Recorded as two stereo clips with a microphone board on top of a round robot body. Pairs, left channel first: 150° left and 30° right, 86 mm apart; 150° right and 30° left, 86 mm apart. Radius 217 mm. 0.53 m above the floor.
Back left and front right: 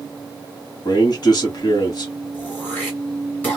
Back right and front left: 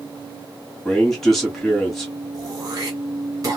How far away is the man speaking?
About 2.0 m.